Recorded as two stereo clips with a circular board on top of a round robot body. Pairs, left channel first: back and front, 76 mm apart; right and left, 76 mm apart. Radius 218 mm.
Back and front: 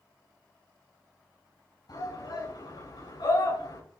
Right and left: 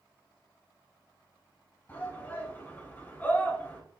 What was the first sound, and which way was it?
A shout, 160° right.